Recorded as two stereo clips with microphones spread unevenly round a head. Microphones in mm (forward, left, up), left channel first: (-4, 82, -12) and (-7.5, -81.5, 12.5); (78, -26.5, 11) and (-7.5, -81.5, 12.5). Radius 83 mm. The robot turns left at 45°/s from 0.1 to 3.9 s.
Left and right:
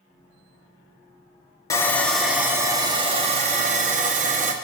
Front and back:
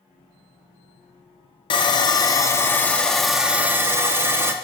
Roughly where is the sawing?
Ahead.